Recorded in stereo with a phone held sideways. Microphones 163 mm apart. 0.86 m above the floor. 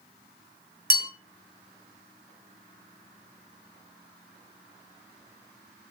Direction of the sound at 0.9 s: 60° right (ahead or behind).